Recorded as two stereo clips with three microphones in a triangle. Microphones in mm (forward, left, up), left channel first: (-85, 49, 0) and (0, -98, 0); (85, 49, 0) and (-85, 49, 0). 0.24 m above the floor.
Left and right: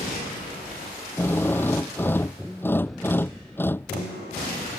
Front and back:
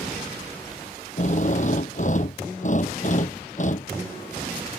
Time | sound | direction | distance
1.2 | a drill | 40° left | ?